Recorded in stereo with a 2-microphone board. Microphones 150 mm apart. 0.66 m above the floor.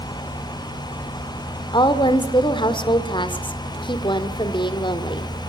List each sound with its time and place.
1.7 s a woman speaking: 30° left (ahead or behind), 2.0 m